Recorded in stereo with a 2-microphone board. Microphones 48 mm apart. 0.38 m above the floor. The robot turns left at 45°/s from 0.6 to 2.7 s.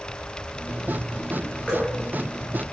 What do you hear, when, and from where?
1.7 s dripping: 20° left (ahead or behind), 5.5 m; by 1.9 s 5° left (ahead or behind), 5.5 m